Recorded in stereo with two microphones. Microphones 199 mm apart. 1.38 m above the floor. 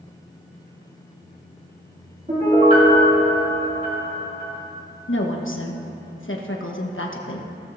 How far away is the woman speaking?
About 1.2 m.